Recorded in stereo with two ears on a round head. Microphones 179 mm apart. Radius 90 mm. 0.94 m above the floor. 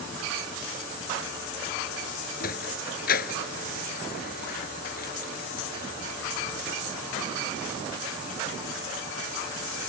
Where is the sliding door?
45° left (ahead or behind).